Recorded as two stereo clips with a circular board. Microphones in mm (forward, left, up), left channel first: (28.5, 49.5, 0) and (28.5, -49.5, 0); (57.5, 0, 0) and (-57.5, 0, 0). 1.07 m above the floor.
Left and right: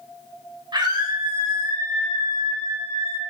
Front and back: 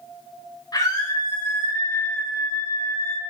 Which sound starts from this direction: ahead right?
A scream, at 0.7 s.